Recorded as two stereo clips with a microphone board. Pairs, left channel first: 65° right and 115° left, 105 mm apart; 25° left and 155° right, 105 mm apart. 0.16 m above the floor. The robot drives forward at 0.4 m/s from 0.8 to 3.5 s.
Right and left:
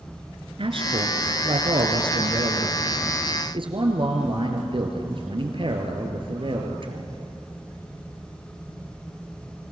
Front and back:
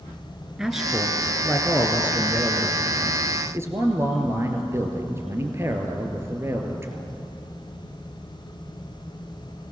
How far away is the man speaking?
About 2 m.